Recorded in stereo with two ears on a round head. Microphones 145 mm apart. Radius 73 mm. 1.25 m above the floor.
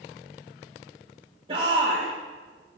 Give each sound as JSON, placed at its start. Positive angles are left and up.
{"t": 1.5, "sound": "a shout", "side_deg": -35, "distance_m": 3.0}